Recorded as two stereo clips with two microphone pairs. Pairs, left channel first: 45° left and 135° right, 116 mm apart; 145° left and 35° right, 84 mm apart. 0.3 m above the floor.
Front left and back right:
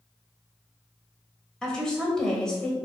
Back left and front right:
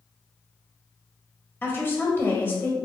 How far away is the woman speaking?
About 1.3 m.